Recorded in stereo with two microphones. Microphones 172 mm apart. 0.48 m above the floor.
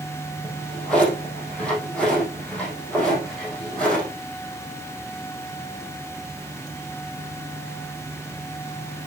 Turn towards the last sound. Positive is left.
turn(degrees=5)  # may be behind; listen again after turning